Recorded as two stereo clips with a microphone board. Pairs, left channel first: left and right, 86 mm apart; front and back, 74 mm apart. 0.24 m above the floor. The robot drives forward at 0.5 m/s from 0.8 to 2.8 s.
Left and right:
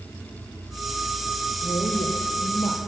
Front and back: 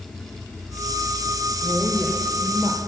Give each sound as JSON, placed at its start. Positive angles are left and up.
{"t": 1.6, "sound": "a woman speaking", "azimuth_deg": 85, "distance_m": 4.5}